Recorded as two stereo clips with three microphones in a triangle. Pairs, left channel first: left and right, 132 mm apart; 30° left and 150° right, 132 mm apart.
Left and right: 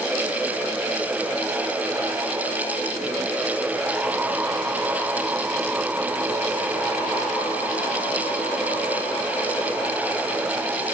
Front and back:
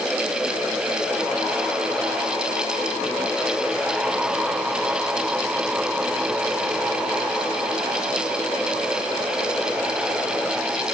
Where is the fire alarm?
No fire alarm in this recording.